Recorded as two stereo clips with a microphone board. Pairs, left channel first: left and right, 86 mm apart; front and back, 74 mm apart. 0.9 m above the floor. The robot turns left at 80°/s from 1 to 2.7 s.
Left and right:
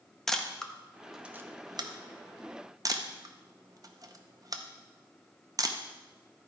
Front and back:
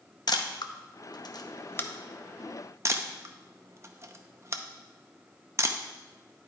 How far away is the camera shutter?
About 0.7 m.